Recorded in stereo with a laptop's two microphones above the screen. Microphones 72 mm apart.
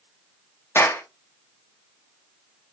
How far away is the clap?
About 0.8 m.